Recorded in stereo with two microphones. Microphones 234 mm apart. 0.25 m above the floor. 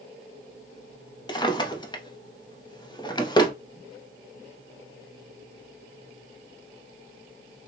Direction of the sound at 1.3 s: 20° left (ahead or behind).